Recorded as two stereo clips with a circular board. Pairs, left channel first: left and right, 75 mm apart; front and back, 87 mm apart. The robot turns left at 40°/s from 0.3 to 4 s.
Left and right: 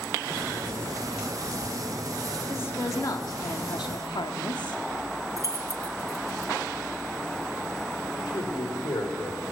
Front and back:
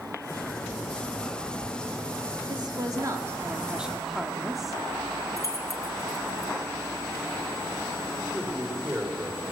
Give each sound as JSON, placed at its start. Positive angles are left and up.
{"t": 2.5, "sound": "a woman speaking", "azimuth_deg": 150, "distance_m": 2.5}
{"t": 5.4, "sound": "keys jangling", "azimuth_deg": -50, "distance_m": 2.0}
{"t": 8.3, "sound": "a man speaking", "azimuth_deg": 105, "distance_m": 6.0}